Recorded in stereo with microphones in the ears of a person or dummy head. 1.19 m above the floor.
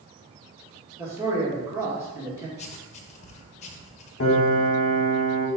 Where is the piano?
55° left (ahead or behind), 1.5 m.